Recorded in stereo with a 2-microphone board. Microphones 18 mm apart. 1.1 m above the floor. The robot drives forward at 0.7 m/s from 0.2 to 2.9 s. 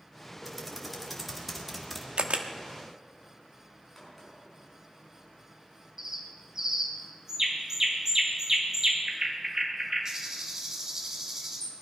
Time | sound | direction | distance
0.5 | typing on a keyboard | centre (ahead or behind) | 2.5 m
2.2 | a camera shutter | 70° right (ahead or behind) | 1.0 m
4.0 | a crack | centre (ahead or behind) | 6 m
6.0 | a bird | 30° right (ahead or behind) | 1.9 m